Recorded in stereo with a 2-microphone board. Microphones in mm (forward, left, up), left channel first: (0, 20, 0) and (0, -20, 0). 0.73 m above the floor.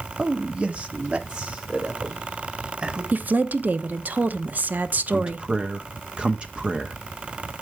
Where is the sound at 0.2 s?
25° right (ahead or behind), 0.8 m; by 3.0 s 30° right (ahead or behind), 3.5 m.